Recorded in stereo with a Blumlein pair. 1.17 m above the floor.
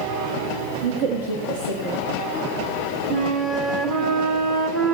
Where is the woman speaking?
55° right, 1.5 m.